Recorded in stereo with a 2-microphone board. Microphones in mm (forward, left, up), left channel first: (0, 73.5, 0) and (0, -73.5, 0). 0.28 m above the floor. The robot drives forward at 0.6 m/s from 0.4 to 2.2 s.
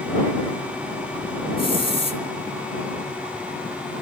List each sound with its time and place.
1.6 s a hiss: 35° left (ahead or behind), 3 m; by 2.2 s 40° left (ahead or behind), 2.5 m